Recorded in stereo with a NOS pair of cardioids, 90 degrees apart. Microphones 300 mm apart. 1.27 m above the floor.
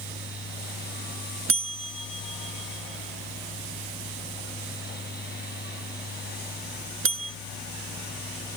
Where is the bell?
45° right.